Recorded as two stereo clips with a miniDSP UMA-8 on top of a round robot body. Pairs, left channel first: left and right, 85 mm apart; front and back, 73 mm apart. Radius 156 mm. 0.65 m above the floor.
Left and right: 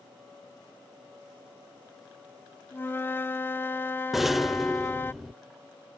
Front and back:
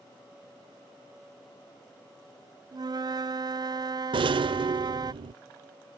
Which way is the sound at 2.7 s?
155° left.